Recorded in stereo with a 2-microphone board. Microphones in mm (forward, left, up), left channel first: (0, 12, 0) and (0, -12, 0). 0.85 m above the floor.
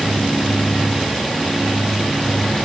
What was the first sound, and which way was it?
Only background noise.